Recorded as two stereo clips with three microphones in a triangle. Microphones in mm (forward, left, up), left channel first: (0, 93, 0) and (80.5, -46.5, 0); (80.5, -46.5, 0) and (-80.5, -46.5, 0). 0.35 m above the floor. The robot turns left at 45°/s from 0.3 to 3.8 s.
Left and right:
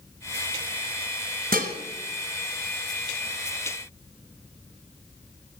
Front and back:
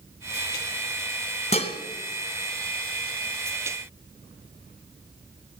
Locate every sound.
1.5 s dishes clattering: 45° right, 2 m; by 1.8 s 55° right, 2 m